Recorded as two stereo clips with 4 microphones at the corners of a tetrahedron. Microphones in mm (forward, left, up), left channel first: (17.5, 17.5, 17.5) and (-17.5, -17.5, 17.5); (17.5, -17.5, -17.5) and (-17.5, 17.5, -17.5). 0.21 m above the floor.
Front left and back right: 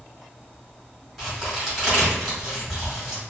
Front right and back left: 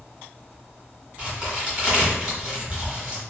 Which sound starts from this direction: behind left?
A crack, at 1.2 s.